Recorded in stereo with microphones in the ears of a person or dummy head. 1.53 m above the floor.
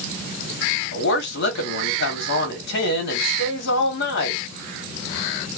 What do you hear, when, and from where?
0.9 s a woman speaking: 55° left (ahead or behind), 1.6 m